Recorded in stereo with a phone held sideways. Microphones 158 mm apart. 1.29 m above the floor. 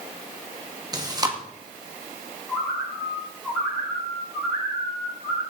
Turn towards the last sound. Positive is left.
turn(degrees=0)  # may be behind; listen again after turning